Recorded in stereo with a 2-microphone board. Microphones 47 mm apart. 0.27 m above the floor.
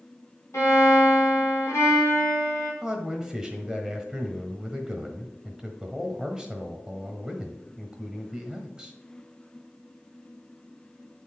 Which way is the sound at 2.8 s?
10° right (ahead or behind).